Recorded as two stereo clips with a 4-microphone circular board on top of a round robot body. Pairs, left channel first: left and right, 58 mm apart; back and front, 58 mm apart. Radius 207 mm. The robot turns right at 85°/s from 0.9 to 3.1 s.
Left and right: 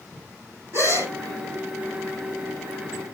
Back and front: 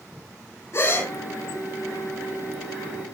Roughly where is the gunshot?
No gunshot in this recording.